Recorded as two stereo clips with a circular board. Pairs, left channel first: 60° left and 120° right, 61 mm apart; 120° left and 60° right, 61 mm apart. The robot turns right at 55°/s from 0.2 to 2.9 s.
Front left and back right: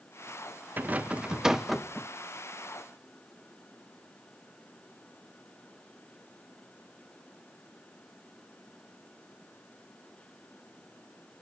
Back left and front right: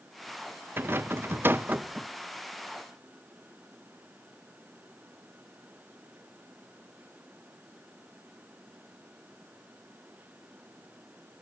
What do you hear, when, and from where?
0.8 s a rattle: 80° right, 0.6 m; by 2.1 s 10° right, 0.6 m